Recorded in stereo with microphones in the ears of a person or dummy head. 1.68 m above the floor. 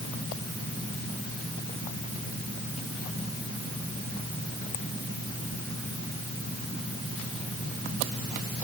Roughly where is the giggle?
No giggle in this recording.